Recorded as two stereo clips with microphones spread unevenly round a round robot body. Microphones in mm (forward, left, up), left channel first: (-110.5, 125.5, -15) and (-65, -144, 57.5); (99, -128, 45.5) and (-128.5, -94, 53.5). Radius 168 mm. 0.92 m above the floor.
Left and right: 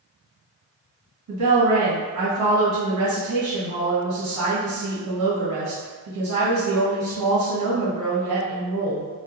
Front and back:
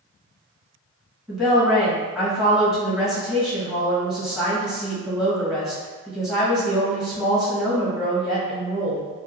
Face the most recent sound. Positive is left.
turn(degrees=-100)